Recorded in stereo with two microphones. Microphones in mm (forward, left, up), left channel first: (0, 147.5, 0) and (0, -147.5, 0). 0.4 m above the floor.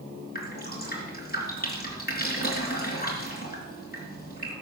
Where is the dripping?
30° left (ahead or behind), 3.5 m.